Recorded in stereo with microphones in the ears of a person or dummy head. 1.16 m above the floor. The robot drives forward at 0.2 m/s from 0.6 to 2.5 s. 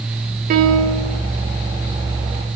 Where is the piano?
55° right (ahead or behind), 0.7 m; by 1.2 s 65° right (ahead or behind), 0.6 m.